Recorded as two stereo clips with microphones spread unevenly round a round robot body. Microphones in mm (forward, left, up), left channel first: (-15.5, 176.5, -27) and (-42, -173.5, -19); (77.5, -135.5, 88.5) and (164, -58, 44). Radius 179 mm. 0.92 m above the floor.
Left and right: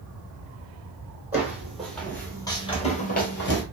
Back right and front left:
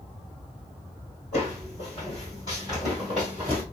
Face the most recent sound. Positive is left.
turn(degrees=130)